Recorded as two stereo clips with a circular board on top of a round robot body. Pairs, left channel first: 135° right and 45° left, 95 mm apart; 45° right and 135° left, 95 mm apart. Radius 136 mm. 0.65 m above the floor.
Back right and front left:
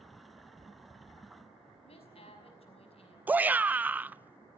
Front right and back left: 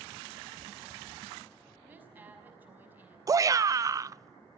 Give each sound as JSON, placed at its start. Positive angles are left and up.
{"t": 1.8, "sound": "a woman speaking", "azimuth_deg": -150, "distance_m": 5.5}
{"t": 3.3, "sound": "a shout", "azimuth_deg": 110, "distance_m": 0.7}